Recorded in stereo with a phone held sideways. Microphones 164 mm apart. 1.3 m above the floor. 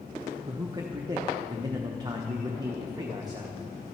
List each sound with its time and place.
0.5 s a man speaking: 25° right (ahead or behind), 0.8 m